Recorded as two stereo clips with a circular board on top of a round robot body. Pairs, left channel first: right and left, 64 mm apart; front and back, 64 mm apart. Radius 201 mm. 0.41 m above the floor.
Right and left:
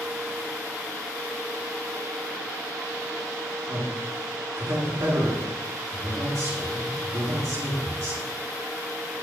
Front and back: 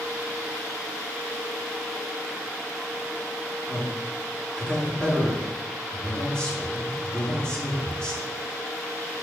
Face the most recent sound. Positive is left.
turn(degrees=70)